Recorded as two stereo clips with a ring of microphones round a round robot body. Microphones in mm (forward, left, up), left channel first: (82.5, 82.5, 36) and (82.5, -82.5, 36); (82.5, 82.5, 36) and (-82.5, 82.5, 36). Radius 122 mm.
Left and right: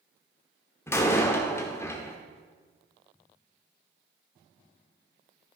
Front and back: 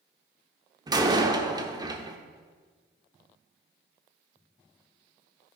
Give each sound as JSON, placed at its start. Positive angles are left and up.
{"t": 0.9, "sound": "a door slam", "azimuth_deg": 150, "distance_m": 1.0}